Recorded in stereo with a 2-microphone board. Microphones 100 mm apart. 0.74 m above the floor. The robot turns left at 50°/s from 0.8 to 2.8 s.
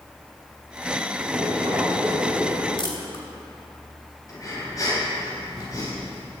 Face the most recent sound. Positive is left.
turn(degrees=35)  # may be behind; listen again after turning